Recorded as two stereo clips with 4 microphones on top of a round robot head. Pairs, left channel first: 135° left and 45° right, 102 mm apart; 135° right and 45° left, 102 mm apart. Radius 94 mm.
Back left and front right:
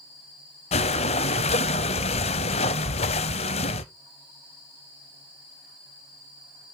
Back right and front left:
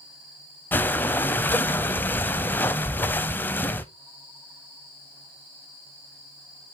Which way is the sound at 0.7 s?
155° left.